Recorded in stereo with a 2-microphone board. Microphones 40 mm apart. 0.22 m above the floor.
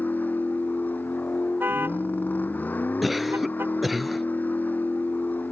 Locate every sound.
0.0 s a vehicle: 50° left (ahead or behind)
1.6 s a car horn: 60° right (ahead or behind)
3.0 s a cough: centre (ahead or behind)